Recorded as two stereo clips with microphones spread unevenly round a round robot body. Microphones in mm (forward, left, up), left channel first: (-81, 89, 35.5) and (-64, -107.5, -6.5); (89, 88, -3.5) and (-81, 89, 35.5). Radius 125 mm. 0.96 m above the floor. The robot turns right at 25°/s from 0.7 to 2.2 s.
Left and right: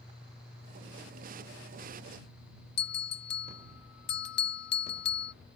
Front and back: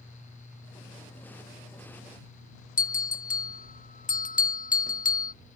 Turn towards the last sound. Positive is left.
turn(degrees=40)